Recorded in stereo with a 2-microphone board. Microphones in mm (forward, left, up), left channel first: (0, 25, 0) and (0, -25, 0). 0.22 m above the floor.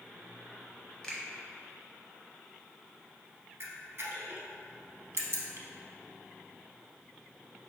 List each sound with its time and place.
1.0 s a finger snap: 15° left (ahead or behind), 0.9 m
3.6 s a camera shutter: 55° right (ahead or behind), 0.6 m